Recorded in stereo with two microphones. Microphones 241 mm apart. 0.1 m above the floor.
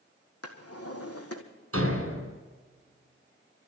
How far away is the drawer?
About 1.9 m.